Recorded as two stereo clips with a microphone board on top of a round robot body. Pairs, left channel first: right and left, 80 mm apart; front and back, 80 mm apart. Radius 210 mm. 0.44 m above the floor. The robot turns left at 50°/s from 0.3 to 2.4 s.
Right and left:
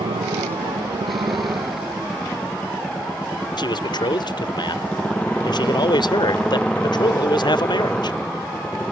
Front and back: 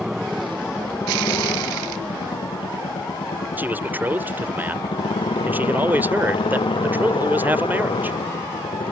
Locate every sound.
0.0 s a motorcycle: 95° left; by 8.9 s 10° right
3.6 s a man speaking: 115° right